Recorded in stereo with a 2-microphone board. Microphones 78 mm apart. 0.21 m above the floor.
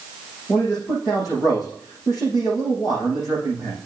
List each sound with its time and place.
0.5 s a man speaking: 50° left (ahead or behind), 6.5 m